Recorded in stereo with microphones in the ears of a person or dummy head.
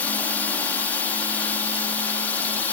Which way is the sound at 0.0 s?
10° left (ahead or behind).